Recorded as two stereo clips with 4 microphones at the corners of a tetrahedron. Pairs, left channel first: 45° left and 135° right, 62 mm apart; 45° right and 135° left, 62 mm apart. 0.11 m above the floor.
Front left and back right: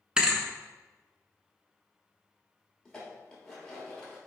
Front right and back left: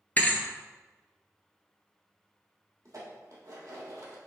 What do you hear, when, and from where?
0.2 s a thud: 70° right, 0.5 m
2.9 s dishes clattering: 120° left, 1.7 m